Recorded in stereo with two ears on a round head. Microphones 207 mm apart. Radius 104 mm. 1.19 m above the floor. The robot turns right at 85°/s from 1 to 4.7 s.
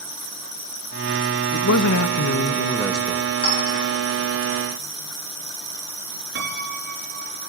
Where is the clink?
20° left (ahead or behind), 9 m; by 3.9 s 60° left (ahead or behind), 9 m.